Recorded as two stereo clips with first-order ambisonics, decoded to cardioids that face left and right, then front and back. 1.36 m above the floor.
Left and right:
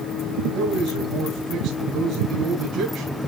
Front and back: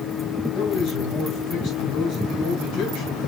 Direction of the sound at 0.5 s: 45° right.